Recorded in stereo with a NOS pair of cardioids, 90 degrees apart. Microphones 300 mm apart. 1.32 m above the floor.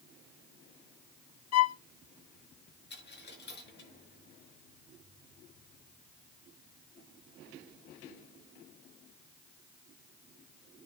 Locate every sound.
1.5 s a violin: 60° left, 0.8 m
2.9 s a dropped coin: 35° left, 5.5 m